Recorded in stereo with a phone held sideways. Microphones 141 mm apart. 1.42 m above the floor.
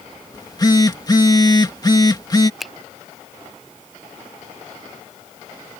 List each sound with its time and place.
0.3 s a phone buzzing: 30° left (ahead or behind)
2.6 s a finger snap: centre (ahead or behind)